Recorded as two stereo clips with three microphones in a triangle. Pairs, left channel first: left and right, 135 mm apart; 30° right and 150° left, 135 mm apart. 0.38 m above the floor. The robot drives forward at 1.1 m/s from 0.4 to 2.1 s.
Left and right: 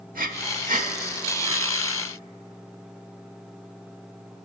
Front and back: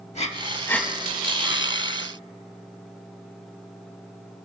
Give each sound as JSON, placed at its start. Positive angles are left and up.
{"t": 0.1, "sound": "breathing", "azimuth_deg": -75, "distance_m": 0.6}